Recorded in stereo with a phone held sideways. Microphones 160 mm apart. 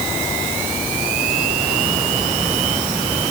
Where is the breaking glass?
I don't hear breaking glass.